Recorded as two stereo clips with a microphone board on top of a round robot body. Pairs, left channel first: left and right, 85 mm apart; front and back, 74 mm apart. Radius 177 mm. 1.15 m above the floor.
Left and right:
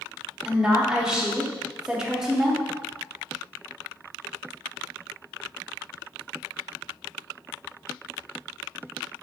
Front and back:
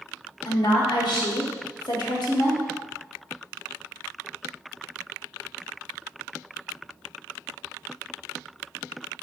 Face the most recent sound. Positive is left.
turn(degrees=-10)